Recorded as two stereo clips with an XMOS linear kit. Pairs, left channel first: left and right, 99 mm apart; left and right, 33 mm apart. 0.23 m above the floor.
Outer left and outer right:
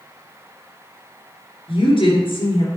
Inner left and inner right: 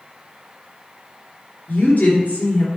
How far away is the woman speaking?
About 3 m.